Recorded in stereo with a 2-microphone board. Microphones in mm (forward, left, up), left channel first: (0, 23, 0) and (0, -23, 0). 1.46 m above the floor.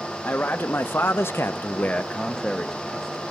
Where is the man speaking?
40° left (ahead or behind), 1.2 m; by 3.2 s centre (ahead or behind), 1.4 m.